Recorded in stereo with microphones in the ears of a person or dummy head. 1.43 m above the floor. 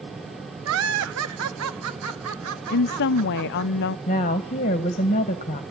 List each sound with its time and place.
0.7 s laughter: 70° right (ahead or behind), 1.2 m; by 3.7 s 75° right (ahead or behind), 4 m
2.7 s a woman speaking: 55° left (ahead or behind), 0.5 m
4.1 s a woman speaking: 30° left (ahead or behind), 1.6 m